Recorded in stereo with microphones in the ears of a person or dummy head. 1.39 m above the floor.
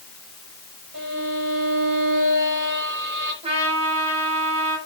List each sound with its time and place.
0.9 s a violin: 50° right (ahead or behind), 5.5 m
3.4 s a trumpet: 25° right (ahead or behind), 3.5 m